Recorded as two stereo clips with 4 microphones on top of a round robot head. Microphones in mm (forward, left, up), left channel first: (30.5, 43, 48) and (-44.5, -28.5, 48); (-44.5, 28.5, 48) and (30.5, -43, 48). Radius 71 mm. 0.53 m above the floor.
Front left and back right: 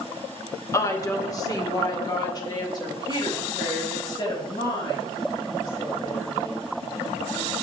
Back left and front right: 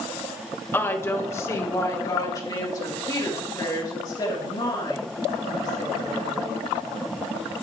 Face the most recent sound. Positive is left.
turn(degrees=90)